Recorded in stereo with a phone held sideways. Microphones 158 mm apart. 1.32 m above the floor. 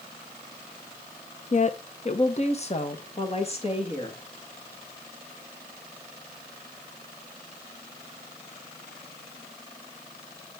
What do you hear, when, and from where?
1.5 s a woman speaking: 45° left (ahead or behind), 0.6 m; by 4.2 s 35° left (ahead or behind), 2 m